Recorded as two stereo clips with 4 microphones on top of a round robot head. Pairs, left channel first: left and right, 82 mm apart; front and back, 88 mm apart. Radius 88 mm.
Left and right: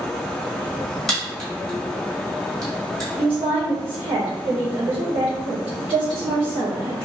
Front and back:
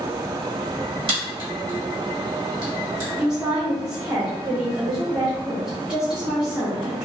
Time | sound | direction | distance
1.1 | a crack | 175° left | 1.5 m
3.2 | a woman speaking | 95° right | 1.1 m